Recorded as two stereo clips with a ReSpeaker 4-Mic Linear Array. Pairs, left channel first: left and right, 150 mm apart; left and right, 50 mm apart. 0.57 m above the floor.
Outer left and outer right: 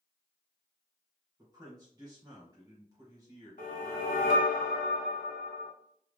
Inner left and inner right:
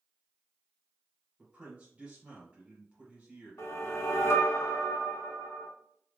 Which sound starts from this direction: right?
A man speaking, at 1.4 s.